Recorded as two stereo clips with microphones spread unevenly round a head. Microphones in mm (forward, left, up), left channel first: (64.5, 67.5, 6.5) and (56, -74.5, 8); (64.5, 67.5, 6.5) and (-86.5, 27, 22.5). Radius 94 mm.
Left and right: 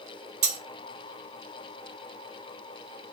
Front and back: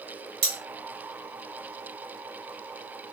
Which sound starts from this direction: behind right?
Cutlery clinking, at 0.4 s.